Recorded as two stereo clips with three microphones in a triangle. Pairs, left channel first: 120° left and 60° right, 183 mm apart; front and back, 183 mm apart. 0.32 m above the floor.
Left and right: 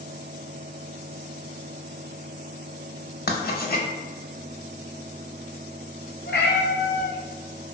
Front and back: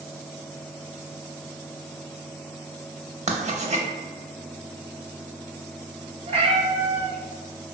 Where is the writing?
130° left, 0.5 m.